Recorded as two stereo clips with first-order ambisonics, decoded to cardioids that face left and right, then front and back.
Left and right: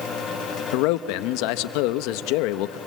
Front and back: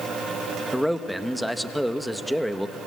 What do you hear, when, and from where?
0.7 s a man speaking: 90° left, 0.8 m